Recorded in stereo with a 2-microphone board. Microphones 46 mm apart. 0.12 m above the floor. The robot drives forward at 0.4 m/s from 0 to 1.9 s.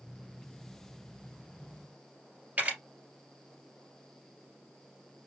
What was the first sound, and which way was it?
A camera shutter, 35° right (ahead or behind).